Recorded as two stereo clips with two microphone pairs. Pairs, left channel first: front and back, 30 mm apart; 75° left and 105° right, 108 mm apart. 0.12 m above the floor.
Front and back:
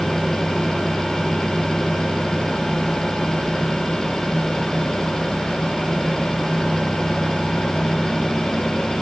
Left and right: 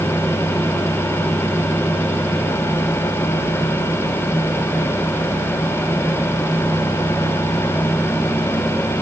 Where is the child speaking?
No child speaking in this recording.